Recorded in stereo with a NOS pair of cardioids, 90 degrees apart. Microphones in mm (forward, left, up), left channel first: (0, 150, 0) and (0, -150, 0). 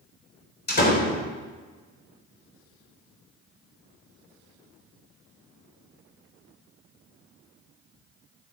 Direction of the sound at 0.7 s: 35° left.